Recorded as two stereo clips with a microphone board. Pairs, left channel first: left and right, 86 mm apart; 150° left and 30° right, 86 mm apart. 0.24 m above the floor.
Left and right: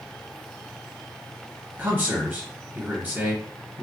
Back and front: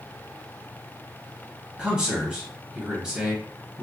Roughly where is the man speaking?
Right.